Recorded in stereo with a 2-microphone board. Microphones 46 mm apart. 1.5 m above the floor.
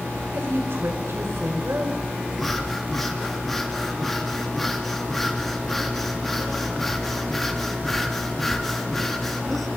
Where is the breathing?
10° left (ahead or behind), 3.5 m.